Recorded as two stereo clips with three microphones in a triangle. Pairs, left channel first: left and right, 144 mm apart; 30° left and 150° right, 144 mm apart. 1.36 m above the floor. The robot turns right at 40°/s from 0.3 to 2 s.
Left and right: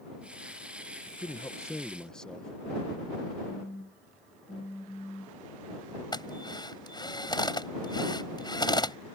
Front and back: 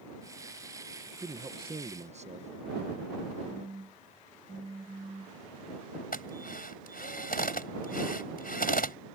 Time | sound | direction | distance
1.1 | a man speaking | 140° left | ?
3.5 | a phone buzzing | 155° left | ?
6.1 | a drill | 30° left | ?